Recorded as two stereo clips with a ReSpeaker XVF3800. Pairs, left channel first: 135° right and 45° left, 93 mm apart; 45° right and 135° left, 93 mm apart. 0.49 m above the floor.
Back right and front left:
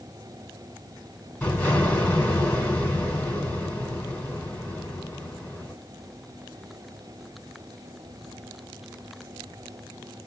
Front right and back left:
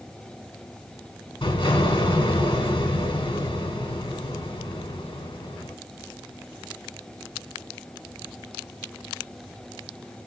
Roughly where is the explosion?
Ahead right.